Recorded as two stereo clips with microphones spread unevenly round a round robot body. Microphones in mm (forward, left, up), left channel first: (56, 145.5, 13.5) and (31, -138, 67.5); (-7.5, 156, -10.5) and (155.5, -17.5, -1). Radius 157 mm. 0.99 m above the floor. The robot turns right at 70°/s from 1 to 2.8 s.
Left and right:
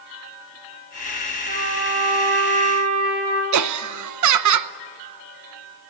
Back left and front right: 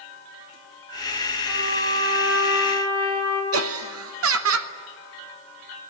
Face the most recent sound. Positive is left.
turn(degrees=-70)